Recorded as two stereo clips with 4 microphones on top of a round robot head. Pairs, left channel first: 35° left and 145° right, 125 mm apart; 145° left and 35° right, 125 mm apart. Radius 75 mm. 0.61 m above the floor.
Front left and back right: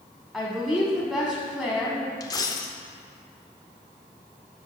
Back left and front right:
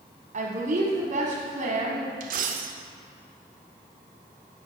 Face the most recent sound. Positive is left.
turn(degrees=-25)